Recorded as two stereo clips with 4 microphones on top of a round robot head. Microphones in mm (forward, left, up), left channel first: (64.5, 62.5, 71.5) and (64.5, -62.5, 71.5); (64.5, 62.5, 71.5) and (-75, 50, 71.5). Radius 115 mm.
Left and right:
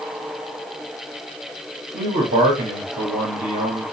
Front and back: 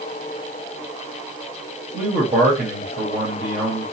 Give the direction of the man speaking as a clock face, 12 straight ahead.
4 o'clock.